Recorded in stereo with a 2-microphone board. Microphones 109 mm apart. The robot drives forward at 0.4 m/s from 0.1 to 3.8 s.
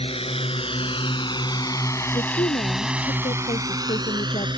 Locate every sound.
0.0 s a drone: 70° left (ahead or behind); by 4.6 s 50° right (ahead or behind)
2.1 s a woman speaking: 75° left (ahead or behind)